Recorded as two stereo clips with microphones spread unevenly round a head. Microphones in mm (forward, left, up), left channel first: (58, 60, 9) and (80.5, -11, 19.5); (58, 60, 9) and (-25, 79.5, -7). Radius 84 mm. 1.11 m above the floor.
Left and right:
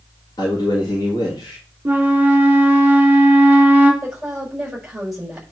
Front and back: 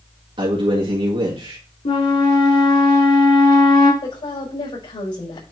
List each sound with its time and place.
0.4 s a man speaking: 155° left, 2 m
1.9 s a flute: straight ahead, 4 m
4.0 s a woman speaking: 15° left, 5.5 m